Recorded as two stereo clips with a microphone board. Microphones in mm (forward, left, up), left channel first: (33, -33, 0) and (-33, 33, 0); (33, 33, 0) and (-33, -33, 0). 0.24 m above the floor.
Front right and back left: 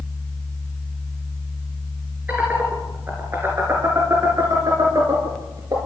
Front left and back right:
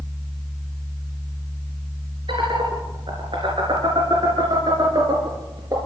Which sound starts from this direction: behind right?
Laughter, at 2.3 s.